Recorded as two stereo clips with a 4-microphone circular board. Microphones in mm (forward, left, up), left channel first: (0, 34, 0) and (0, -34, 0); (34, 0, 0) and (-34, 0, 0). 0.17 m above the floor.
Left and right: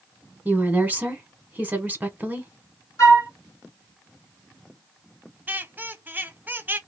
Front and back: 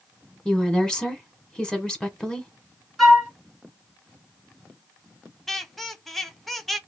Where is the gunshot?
No gunshot in this recording.